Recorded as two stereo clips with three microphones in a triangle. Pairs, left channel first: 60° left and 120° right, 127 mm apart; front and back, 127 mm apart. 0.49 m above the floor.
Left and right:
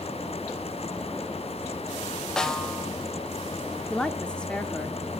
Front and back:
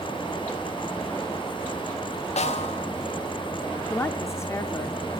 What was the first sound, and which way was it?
A snare drum, 25° right.